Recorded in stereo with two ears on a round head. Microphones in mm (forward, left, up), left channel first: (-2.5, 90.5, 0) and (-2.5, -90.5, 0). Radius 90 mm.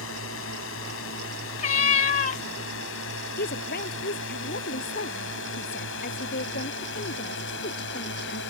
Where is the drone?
70° left (ahead or behind); by 8.5 s 60° left (ahead or behind).